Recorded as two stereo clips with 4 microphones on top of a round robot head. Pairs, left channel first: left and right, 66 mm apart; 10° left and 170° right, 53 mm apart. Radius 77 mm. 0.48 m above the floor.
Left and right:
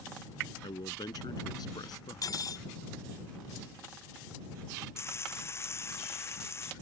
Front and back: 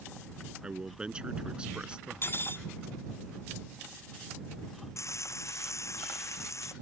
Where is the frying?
40° left.